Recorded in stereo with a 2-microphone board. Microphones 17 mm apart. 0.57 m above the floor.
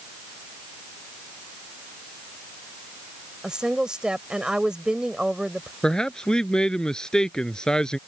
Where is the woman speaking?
55° right (ahead or behind).